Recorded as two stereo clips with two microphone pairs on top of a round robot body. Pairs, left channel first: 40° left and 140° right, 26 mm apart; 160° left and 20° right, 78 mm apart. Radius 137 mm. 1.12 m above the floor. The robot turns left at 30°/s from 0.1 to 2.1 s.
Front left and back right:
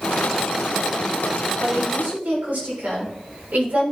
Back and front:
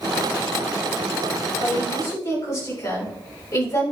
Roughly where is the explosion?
I don't hear an explosion.